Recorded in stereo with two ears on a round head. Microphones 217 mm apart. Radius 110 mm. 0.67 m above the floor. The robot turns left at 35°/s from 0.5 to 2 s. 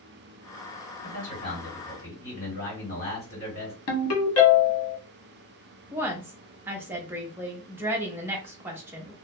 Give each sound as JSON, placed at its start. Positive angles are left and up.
{"t": 1.0, "sound": "a man speaking", "azimuth_deg": 60, "distance_m": 1.9}
{"t": 3.9, "sound": "a ringtone", "side_deg": 65, "distance_m": 1.1}
{"t": 5.9, "sound": "a woman speaking", "side_deg": -10, "distance_m": 0.5}